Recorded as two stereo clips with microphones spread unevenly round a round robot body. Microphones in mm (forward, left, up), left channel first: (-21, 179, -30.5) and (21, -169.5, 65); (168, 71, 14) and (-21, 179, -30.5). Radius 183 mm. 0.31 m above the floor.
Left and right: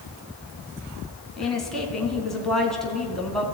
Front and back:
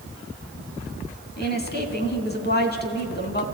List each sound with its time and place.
1.4 s a woman speaking: 15° left, 3 m